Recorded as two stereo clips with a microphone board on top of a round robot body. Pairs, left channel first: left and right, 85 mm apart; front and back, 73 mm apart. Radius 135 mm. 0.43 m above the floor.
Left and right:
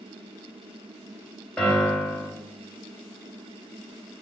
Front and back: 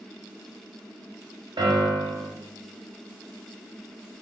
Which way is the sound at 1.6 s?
170° left.